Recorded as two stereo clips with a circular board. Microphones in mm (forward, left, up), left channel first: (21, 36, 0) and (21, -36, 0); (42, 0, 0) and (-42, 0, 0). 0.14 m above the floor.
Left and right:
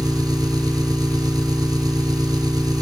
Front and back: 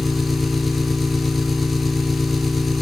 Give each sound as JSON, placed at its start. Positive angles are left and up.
{"t": 0.0, "sound": "an engine running", "azimuth_deg": -90, "distance_m": 1.4}